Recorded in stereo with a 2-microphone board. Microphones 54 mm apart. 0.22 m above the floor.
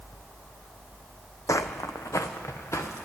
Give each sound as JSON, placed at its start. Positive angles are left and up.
{"t": 1.5, "sound": "footsteps", "side_deg": 75, "distance_m": 0.5}